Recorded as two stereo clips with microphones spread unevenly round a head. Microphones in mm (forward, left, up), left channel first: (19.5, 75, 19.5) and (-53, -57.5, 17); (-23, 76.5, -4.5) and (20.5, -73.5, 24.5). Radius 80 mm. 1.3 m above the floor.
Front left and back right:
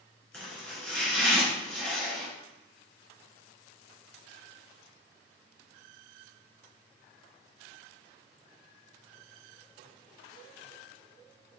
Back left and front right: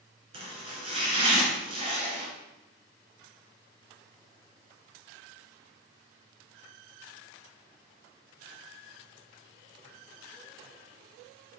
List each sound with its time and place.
0.3 s chopping: 20° right, 3 m